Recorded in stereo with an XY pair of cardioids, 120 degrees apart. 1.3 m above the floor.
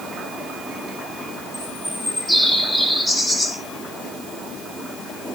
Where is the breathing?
I don't hear breathing.